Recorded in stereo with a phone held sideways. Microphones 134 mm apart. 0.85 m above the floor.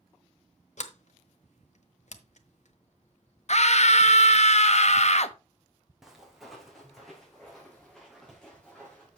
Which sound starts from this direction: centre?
Footsteps, at 6.0 s.